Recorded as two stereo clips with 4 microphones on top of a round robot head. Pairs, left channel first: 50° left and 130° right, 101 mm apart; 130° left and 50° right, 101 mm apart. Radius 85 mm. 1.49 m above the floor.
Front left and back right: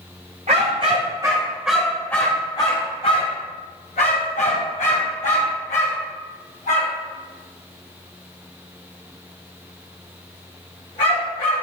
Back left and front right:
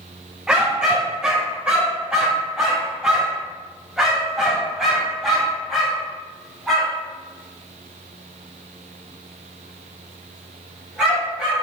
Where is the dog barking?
130° right, 1.4 m; by 11.6 s 40° left, 6 m.